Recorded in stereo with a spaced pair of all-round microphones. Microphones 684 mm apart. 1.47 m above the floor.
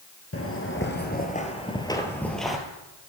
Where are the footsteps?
20° left (ahead or behind), 1.5 m; by 2.6 s centre (ahead or behind), 1.6 m.